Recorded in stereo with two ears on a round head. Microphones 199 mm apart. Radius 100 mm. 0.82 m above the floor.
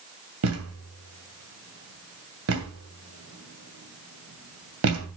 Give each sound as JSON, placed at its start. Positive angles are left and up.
{"t": 0.4, "sound": "a thud", "side_deg": -70, "distance_m": 2.5}